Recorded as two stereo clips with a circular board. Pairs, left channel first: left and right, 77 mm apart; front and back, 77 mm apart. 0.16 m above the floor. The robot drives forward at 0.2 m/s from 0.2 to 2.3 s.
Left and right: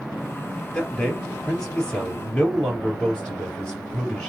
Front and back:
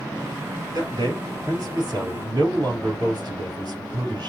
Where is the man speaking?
165° left, 3 m.